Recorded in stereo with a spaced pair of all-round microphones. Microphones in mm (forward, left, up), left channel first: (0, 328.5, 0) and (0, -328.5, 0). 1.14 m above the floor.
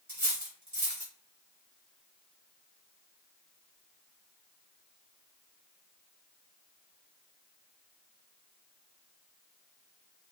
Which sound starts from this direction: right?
Cutlery clinking, at 0.1 s.